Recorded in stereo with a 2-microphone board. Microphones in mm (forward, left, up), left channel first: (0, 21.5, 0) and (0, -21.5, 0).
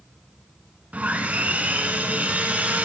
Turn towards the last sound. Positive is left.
turn(degrees=-35)  # may be behind; listen again after turning